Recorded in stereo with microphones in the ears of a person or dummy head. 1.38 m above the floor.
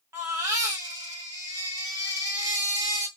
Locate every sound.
0.1 s a baby crying: 10° right (ahead or behind), 0.9 m